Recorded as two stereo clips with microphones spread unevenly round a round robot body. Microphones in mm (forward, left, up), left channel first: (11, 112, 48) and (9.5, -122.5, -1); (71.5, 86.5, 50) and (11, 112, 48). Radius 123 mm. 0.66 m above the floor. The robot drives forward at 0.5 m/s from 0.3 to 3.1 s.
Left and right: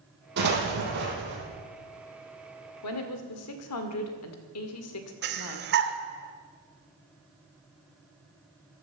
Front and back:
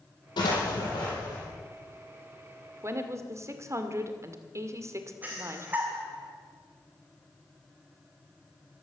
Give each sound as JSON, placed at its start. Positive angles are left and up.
{"t": 0.4, "sound": "an explosion", "azimuth_deg": -40, "distance_m": 5.0}
{"t": 2.8, "sound": "a woman speaking", "azimuth_deg": 115, "distance_m": 2.0}
{"t": 5.2, "sound": "breathing", "azimuth_deg": -130, "distance_m": 1.5}